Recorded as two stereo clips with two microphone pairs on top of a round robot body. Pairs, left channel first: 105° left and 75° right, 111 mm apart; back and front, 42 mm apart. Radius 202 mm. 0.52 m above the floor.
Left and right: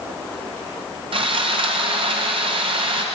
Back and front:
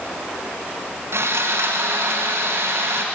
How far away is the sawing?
About 2.5 m.